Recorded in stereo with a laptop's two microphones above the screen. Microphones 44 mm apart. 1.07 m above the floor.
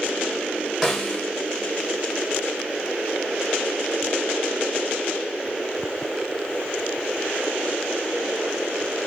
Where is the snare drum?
5° right (ahead or behind), 1.9 m.